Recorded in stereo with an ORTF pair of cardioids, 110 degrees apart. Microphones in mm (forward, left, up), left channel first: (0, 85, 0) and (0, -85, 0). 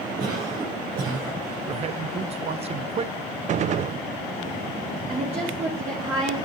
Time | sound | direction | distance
0.2 | a cough | 70° right | 6 m
1.7 | a man speaking | 40° right | 0.8 m
3.5 | a gunshot | 45° right | 0.5 m
5.1 | a woman speaking | 40° right | 3 m